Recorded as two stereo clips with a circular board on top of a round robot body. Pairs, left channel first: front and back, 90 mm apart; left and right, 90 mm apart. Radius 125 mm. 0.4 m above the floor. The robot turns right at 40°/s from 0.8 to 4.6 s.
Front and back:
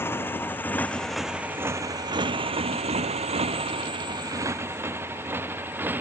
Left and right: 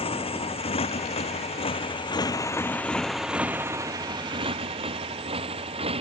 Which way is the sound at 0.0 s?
65° left.